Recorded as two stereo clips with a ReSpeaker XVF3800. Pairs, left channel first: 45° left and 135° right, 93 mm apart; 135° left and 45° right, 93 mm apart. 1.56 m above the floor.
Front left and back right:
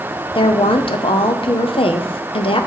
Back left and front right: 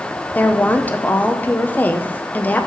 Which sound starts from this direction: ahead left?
A woman speaking, at 0.3 s.